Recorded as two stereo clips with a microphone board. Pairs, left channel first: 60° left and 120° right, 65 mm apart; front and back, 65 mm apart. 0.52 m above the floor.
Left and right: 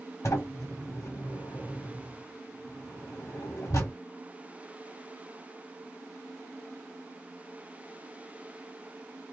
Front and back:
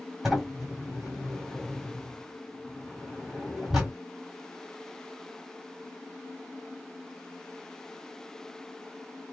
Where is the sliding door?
100° left, 1.6 m.